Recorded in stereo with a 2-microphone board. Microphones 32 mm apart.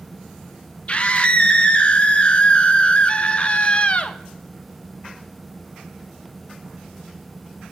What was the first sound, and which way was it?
A scream, 35° left (ahead or behind).